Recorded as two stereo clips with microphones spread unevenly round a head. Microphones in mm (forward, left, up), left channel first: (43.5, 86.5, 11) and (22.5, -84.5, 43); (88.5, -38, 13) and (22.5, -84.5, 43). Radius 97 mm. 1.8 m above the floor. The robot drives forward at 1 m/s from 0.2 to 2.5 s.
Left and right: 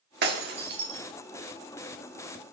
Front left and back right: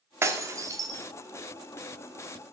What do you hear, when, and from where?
0.2 s breaking glass: 110° right, 2 m; by 1.0 s 130° right, 2.5 m